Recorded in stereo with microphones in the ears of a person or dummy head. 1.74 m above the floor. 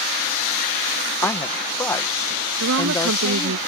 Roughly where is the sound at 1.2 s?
Centre.